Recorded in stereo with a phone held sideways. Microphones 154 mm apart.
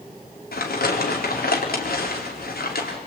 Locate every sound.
0.5 s crumpling: 85° left, 4.5 m